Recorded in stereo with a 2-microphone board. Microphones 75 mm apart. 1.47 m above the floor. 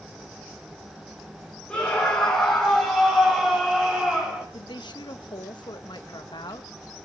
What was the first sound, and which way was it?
A scream, 15° left (ahead or behind).